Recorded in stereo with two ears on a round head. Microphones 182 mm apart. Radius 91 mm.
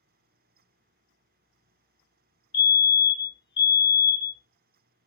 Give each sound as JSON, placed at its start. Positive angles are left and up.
{"t": 2.5, "sound": "a fire alarm", "side_deg": 20, "distance_m": 0.6}